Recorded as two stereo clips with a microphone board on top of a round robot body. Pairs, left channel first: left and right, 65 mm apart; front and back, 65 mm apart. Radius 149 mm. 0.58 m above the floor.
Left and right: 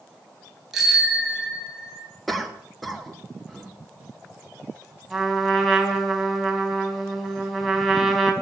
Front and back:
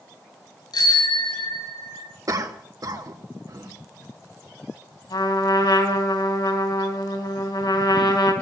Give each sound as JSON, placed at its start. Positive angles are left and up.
{"t": 0.7, "sound": "a bicycle bell", "azimuth_deg": -5, "distance_m": 9.0}
{"t": 2.3, "sound": "a cough", "azimuth_deg": 180, "distance_m": 2.5}
{"t": 5.1, "sound": "a trumpet", "azimuth_deg": 0, "distance_m": 3.0}